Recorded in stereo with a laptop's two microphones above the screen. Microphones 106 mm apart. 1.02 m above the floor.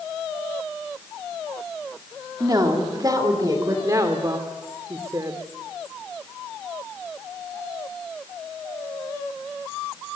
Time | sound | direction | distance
2.4 | a woman speaking | 35° right (ahead or behind) | 2 m
3.8 | a woman speaking | 35° right (ahead or behind) | 2.5 m